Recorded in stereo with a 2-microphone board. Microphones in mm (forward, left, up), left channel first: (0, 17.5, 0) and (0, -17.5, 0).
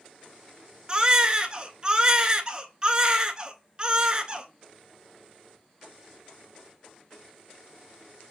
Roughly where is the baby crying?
Right.